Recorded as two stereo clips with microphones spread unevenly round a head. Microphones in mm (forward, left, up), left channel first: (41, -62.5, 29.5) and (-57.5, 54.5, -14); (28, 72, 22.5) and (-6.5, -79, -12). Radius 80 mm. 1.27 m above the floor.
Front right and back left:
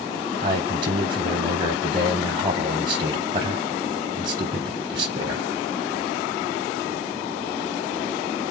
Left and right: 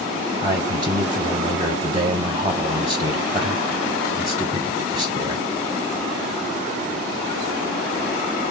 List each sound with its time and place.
0.4 s a man speaking: 175° right, 0.7 m